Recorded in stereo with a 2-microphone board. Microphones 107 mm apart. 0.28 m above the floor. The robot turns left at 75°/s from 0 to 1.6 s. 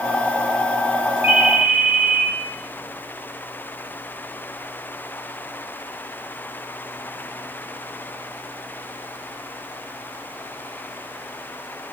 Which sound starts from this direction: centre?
A ringtone, at 1.2 s.